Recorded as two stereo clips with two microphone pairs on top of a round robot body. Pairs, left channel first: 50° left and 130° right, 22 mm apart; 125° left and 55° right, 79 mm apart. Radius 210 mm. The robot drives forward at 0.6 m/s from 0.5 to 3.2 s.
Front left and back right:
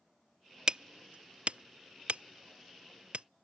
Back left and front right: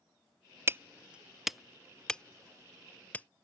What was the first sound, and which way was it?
Hammering, 90° right.